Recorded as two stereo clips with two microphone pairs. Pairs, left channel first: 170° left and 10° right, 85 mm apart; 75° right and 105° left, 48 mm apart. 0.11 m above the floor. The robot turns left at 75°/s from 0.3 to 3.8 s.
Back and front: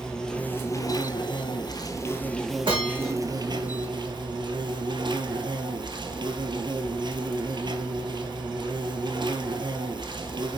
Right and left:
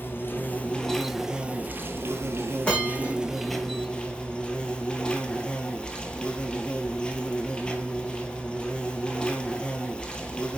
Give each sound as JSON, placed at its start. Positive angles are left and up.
{"t": 0.0, "sound": "an insect", "azimuth_deg": -110, "distance_m": 1.4}
{"t": 2.6, "sound": "a bell", "azimuth_deg": -10, "distance_m": 4.5}